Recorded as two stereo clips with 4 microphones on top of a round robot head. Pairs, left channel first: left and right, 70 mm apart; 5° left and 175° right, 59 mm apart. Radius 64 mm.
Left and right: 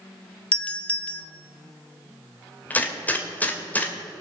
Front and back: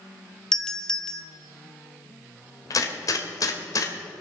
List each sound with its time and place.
0.5 s a doorbell: 65° left, 1.2 m
2.7 s a gunshot: 25° left, 2 m